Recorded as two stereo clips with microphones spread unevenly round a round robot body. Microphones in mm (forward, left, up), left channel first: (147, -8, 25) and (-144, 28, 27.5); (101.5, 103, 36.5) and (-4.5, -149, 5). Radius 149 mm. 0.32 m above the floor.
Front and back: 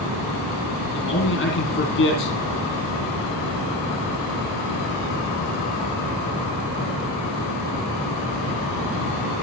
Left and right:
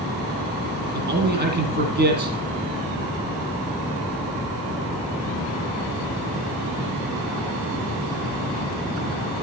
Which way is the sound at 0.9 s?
60° right.